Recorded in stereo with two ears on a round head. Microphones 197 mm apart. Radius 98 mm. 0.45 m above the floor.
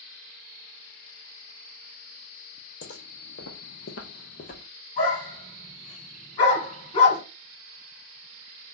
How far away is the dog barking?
About 1.6 m.